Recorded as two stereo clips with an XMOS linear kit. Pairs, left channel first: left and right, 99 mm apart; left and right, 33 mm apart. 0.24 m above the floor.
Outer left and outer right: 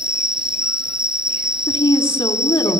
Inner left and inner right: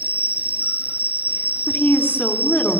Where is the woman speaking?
55° left (ahead or behind), 3 m.